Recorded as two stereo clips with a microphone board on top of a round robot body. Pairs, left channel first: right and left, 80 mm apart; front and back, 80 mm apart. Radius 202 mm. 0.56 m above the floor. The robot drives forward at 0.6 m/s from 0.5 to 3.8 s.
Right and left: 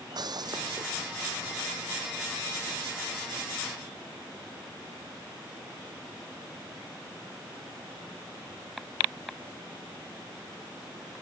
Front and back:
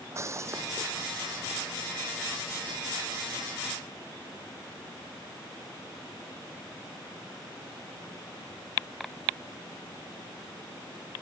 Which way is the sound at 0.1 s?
125° left.